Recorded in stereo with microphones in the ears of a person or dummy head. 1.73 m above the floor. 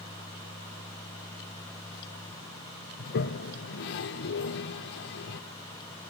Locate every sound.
3.0 s a toilet flushing: 60° left (ahead or behind), 1.1 m